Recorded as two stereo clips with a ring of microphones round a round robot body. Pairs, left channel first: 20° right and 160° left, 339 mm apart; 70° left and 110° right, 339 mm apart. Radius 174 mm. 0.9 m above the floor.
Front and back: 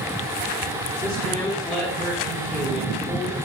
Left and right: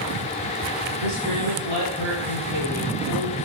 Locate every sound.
1.0 s a man speaking: 105° right, 3 m